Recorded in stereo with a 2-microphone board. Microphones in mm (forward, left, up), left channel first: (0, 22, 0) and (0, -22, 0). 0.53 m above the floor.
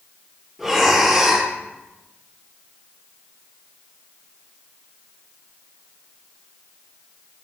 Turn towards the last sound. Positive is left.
turn(degrees=0)  # may be behind; listen again after turning